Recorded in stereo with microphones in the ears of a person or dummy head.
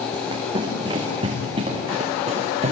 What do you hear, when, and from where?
0.1 s running footsteps: 30° right (ahead or behind), 6.5 m; by 2.7 s 40° right (ahead or behind), 6.5 m